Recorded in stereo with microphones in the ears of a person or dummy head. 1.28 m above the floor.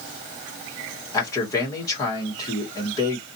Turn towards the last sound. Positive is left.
turn(degrees=15)  # may be behind; listen again after turning